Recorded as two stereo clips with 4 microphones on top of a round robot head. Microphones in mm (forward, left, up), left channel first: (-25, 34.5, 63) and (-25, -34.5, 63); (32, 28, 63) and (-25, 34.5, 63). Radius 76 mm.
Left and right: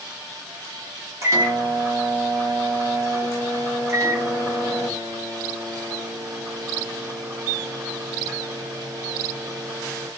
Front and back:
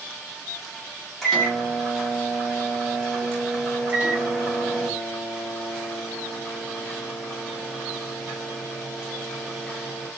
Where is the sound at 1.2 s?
95° right, 1.4 m.